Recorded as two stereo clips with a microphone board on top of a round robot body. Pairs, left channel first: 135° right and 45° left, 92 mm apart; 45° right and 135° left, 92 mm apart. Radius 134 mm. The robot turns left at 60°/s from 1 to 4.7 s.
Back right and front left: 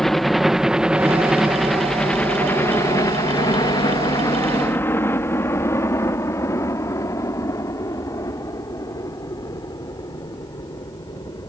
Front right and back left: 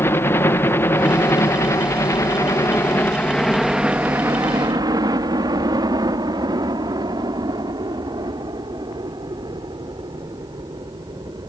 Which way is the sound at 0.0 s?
55° right.